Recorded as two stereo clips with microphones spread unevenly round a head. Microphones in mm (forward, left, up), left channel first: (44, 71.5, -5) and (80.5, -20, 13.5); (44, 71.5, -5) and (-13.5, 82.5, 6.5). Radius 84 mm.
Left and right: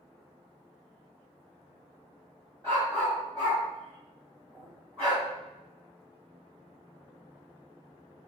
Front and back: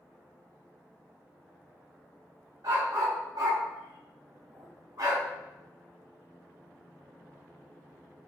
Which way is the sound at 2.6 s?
165° right.